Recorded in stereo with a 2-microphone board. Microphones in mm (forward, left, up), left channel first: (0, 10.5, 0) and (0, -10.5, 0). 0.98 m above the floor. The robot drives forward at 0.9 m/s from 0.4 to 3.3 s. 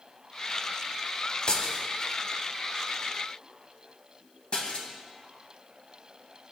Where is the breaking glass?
55° left (ahead or behind), 1.5 m; by 4.9 s 50° left (ahead or behind), 1.6 m.